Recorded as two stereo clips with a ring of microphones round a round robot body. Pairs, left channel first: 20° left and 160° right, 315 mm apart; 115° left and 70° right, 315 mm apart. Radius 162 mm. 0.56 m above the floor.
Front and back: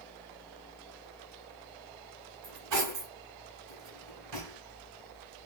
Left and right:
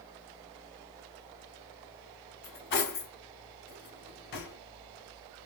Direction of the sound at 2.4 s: 170° left.